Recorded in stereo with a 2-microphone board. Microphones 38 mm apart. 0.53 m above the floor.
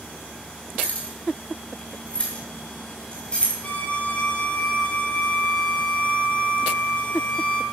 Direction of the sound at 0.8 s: 35° left (ahead or behind).